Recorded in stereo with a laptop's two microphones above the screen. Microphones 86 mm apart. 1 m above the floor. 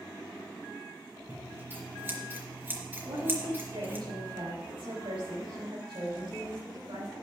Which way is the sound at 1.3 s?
25° right (ahead or behind).